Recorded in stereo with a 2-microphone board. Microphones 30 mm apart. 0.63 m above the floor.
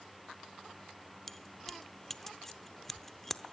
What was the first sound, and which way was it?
Keys jangling, 10° left (ahead or behind).